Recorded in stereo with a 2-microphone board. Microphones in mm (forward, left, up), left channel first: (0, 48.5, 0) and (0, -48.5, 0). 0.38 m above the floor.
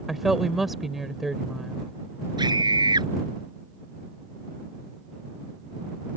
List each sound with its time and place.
0.1 s a woman speaking: centre (ahead or behind)
2.4 s a scream: 50° right (ahead or behind)